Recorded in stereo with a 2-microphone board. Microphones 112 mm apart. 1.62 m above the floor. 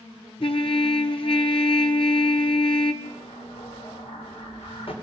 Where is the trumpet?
50° left (ahead or behind), 1.4 m.